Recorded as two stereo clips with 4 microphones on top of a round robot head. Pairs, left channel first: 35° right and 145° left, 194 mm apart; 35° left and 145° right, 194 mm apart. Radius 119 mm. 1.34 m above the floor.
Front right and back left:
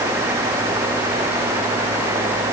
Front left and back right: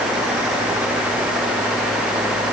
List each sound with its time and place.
Only background noise.